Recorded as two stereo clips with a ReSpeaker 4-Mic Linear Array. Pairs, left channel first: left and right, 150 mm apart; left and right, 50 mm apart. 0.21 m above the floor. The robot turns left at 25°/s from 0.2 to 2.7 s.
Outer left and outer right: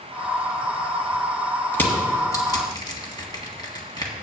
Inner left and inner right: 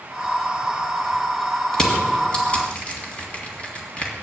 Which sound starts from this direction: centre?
Crushing, at 1.7 s.